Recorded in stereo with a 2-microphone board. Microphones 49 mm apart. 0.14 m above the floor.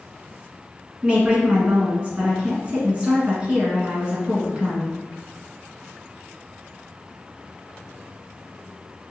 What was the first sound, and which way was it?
A woman speaking, 25° right (ahead or behind).